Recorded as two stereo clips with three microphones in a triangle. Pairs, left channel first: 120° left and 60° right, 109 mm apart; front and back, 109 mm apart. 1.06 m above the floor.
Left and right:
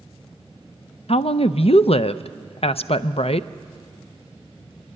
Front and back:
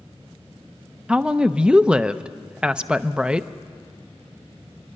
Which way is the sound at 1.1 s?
100° left.